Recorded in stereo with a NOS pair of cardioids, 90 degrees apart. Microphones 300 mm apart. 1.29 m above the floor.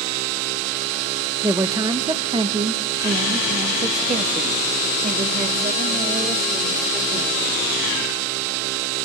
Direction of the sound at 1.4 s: 10° right.